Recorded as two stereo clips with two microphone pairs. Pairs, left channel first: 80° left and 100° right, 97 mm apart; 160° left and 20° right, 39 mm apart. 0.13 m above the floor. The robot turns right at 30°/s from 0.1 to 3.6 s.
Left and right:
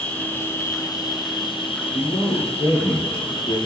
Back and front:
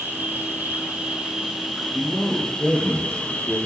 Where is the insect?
10° left, 2.5 m; by 3.7 s 115° left, 2.5 m.